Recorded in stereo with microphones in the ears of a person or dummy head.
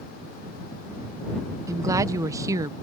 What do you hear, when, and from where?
1.7 s a woman speaking: 15° right (ahead or behind)